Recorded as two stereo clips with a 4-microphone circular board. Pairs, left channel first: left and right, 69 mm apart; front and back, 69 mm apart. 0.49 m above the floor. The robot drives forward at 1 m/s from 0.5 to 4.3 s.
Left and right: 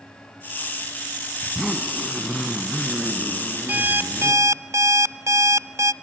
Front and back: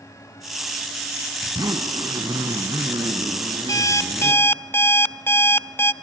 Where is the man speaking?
No man speaking in this recording.